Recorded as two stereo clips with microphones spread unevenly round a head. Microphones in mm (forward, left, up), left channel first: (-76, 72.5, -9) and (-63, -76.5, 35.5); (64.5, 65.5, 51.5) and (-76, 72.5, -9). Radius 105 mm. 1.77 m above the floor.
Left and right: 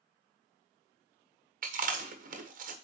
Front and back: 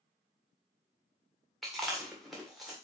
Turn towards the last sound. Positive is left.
turn(degrees=-85)